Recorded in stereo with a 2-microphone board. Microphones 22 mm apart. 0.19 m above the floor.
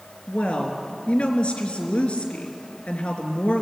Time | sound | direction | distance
0.3 | a woman speaking | 50° left (ahead or behind) | 3 m